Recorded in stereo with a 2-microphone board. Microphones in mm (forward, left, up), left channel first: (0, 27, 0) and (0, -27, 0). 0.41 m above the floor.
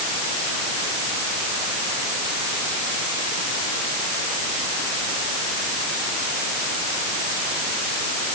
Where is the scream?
No scream in this recording.